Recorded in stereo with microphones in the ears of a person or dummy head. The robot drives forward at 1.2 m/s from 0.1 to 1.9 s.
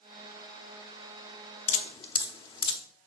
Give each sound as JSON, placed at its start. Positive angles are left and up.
{"t": 1.7, "sound": "dripping", "side_deg": 40, "distance_m": 0.7}